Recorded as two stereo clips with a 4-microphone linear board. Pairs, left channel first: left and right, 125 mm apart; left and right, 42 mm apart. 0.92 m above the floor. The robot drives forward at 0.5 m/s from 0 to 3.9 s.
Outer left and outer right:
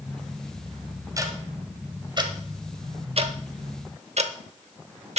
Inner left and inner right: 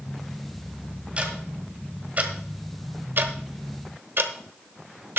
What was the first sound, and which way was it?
Ticking, 25° right (ahead or behind).